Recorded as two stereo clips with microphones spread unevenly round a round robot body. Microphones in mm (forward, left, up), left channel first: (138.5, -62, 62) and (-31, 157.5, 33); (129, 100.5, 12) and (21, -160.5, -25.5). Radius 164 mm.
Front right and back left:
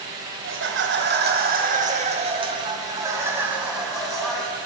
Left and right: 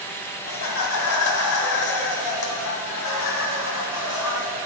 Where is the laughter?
100° left, 2 m; by 4.5 s 35° left, 3 m.